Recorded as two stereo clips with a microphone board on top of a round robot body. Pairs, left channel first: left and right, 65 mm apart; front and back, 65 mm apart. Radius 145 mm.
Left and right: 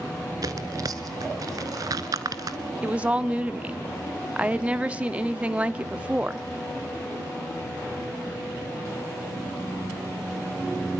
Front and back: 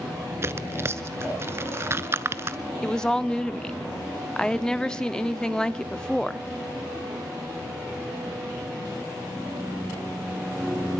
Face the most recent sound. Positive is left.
turn(degrees=-60)